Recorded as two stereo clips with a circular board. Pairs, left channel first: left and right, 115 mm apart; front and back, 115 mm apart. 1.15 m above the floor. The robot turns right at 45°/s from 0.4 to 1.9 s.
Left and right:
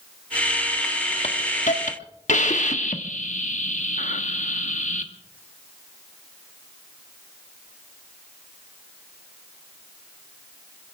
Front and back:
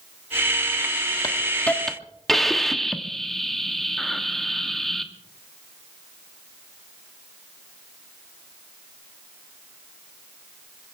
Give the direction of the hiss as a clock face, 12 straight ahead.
10 o'clock.